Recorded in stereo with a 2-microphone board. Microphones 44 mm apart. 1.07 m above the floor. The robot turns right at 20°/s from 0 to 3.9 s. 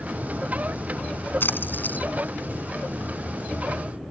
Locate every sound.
1.4 s a splash: 55° left (ahead or behind); by 2.1 s 40° left (ahead or behind)